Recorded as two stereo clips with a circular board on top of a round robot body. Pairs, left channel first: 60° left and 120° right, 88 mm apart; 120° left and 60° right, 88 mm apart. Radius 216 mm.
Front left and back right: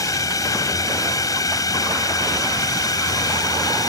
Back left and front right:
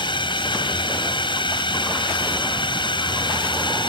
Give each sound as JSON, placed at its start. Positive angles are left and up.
{"t": 0.0, "sound": "a drone", "azimuth_deg": 105}